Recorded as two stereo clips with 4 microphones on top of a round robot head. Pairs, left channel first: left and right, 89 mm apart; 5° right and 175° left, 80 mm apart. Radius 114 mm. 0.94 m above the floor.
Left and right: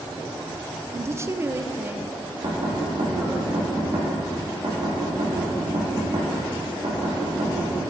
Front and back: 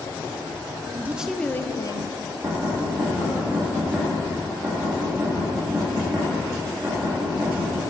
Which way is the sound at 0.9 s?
140° right.